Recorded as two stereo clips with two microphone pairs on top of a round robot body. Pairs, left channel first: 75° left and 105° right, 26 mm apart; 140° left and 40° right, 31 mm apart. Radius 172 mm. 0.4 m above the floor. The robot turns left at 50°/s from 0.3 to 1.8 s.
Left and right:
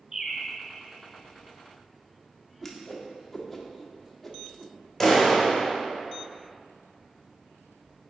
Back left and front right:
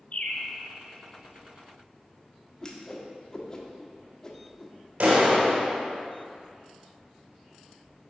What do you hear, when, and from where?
0.1 s a bird: 170° right, 0.8 m; by 0.5 s straight behind, 0.8 m
2.6 s a whoosh: 145° left, 1.3 m
5.0 s a clap: 10° right, 2.0 m